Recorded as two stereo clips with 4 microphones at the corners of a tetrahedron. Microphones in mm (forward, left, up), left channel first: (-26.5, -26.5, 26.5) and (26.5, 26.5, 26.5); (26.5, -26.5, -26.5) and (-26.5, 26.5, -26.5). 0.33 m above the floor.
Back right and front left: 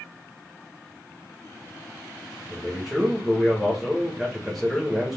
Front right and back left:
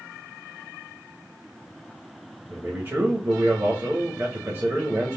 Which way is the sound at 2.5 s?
135° left.